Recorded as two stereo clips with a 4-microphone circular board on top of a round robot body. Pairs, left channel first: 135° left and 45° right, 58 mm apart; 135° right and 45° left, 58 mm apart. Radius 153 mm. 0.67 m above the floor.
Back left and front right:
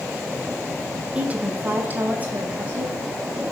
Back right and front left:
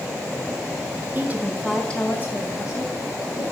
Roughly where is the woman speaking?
Ahead.